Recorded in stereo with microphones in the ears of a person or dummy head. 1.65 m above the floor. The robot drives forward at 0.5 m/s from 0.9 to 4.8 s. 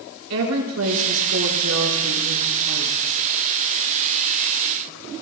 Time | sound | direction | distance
0.3 | a woman speaking | 90° right | 5 m